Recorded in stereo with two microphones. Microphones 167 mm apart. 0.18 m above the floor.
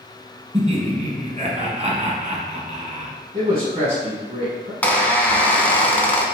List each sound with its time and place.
0.5 s laughter: 40° right (ahead or behind), 1.4 m
3.3 s a man speaking: 35° right (ahead or behind), 1.3 m
4.8 s a squeak: 10° left (ahead or behind), 0.8 m